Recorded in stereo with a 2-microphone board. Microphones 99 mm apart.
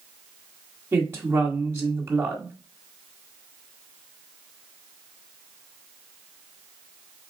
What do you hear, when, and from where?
0.9 s a woman speaking: 25° right (ahead or behind), 1.5 m